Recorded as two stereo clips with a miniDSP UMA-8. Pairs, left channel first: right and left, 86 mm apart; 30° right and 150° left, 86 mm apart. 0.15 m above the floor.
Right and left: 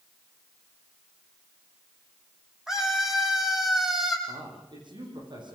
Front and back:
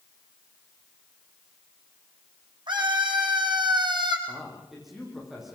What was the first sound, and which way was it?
A scream, 175° left.